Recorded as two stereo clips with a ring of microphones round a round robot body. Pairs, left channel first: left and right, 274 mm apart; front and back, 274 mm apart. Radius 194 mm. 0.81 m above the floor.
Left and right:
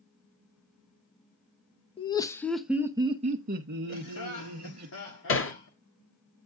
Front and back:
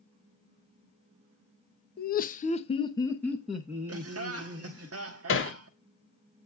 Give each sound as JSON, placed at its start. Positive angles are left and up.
{"t": 2.0, "sound": "laughter", "azimuth_deg": 30, "distance_m": 0.9}
{"t": 3.9, "sound": "laughter", "azimuth_deg": 145, "distance_m": 1.4}
{"t": 5.3, "sound": "hammering", "azimuth_deg": 45, "distance_m": 1.9}